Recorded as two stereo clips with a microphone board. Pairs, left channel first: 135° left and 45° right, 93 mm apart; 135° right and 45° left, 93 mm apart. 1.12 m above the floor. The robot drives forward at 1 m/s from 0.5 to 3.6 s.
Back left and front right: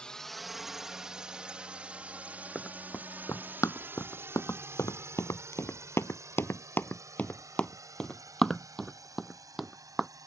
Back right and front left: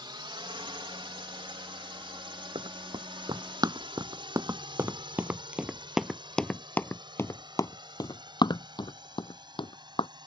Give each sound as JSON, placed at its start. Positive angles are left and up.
{"t": 0.0, "sound": "a drone", "azimuth_deg": 55}
{"t": 2.5, "sound": "running footsteps", "azimuth_deg": 55}